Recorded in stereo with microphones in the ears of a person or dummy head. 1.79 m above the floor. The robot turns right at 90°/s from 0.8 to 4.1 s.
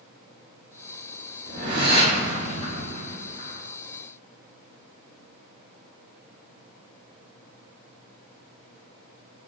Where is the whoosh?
75° right, 1.5 m; by 3.6 s 120° left, 1.5 m.